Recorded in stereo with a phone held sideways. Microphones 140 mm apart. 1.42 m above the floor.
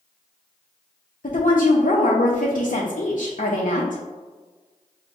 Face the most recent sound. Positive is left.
turn(degrees=80)